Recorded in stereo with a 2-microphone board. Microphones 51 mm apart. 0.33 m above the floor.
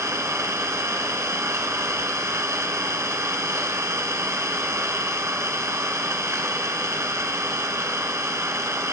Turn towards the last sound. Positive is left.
turn(degrees=-70)  # may be behind; listen again after turning